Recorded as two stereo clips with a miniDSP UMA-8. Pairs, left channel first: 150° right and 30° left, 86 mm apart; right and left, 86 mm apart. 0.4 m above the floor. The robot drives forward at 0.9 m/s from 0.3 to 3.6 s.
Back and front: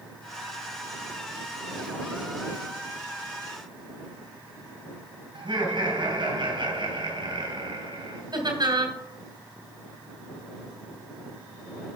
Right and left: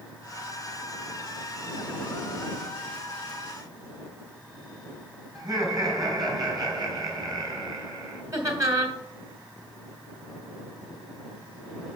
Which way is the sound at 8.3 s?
45° left.